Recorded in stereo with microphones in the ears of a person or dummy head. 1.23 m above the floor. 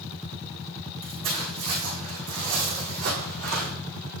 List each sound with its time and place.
1.0 s footsteps: 25° right (ahead or behind), 4 m; by 3.7 s 60° right (ahead or behind), 5 m